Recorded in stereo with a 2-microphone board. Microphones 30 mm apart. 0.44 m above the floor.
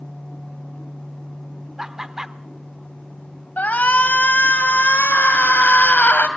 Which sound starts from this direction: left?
A shout, at 3.6 s.